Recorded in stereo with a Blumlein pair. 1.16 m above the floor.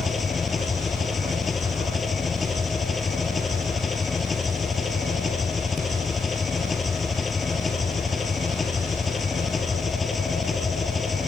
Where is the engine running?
20° left.